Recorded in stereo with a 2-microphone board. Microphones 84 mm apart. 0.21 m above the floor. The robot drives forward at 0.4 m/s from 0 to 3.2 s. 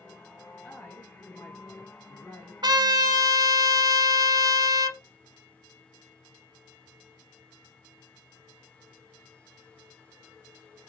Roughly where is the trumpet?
Right.